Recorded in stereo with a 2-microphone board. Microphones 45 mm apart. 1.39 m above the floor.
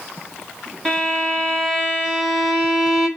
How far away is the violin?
About 1.7 m.